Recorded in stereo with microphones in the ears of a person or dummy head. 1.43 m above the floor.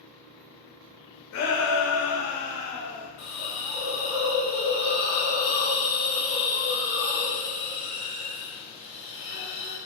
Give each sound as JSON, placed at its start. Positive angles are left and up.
{"t": 1.3, "sound": "a shout", "side_deg": 65, "distance_m": 1.2}
{"t": 3.2, "sound": "a hiss", "side_deg": 40, "distance_m": 1.7}